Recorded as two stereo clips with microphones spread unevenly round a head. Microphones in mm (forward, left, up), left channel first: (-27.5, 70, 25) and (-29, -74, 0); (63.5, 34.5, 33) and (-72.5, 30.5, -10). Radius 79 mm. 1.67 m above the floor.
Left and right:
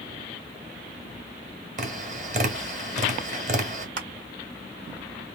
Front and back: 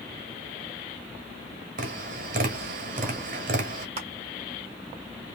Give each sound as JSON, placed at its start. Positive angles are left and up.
{"t": 1.8, "sound": "tapping", "azimuth_deg": -130, "distance_m": 1.7}
{"t": 4.0, "sound": "crushing", "azimuth_deg": -120, "distance_m": 1.6}